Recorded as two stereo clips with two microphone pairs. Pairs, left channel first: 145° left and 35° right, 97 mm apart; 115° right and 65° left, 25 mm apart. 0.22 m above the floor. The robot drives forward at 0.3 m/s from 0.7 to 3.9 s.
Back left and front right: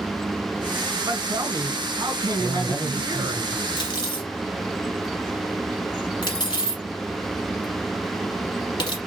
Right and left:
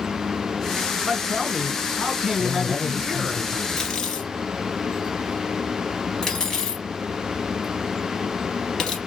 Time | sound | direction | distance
1.0 | a man speaking | 10° right | 2 m
2.4 | a man speaking | 75° left | 1.4 m
3.8 | cutlery clinking | straight behind | 2 m